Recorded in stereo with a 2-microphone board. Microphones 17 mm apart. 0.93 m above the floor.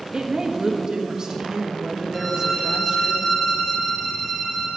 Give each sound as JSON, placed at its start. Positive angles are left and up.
{"t": 0.1, "sound": "a woman speaking", "side_deg": -45, "distance_m": 1.2}
{"t": 2.1, "sound": "a violin", "side_deg": 30, "distance_m": 3.5}